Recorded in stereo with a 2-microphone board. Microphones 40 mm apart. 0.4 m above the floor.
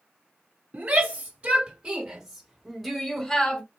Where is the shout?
40° right (ahead or behind), 2.5 m; by 3.6 s 20° left (ahead or behind), 1.6 m.